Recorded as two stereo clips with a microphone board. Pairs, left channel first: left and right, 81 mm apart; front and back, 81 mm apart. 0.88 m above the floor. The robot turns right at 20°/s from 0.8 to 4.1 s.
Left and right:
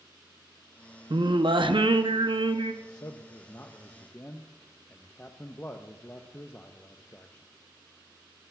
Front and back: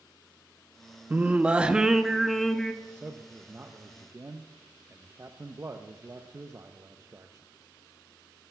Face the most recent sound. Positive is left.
turn(degrees=145)